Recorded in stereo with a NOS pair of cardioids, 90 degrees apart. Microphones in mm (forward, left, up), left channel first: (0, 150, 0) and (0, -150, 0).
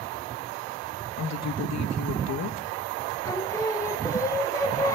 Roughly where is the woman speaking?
Ahead left.